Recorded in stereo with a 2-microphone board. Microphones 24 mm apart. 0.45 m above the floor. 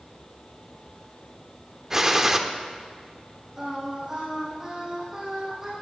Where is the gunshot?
20° right (ahead or behind), 1.1 m.